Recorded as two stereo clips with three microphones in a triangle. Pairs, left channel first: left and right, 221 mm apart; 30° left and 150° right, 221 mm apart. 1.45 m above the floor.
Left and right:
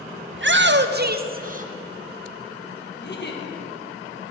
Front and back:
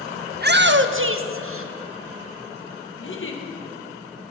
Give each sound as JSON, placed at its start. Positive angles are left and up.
{"t": 0.3, "sound": "a shout", "azimuth_deg": -105, "distance_m": 0.7}
{"t": 3.0, "sound": "a giggle", "azimuth_deg": 55, "distance_m": 1.4}